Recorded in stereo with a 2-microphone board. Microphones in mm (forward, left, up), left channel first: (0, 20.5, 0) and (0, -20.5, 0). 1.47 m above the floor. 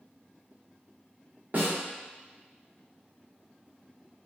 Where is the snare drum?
45° right (ahead or behind), 0.9 m.